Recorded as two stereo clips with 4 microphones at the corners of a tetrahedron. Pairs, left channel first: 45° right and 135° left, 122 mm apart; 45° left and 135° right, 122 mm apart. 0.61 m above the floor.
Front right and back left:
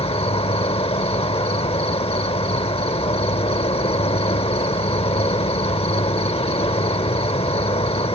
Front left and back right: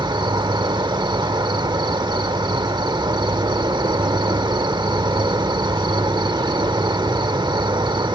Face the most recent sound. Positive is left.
turn(degrees=-80)